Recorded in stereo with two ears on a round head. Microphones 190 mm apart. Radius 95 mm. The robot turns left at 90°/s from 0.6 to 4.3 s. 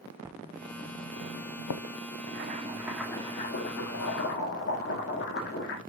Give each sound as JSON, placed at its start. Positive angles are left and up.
{"t": 0.2, "sound": "writing", "side_deg": -10, "distance_m": 0.7}
{"t": 2.3, "sound": "boiling", "azimuth_deg": -115, "distance_m": 1.6}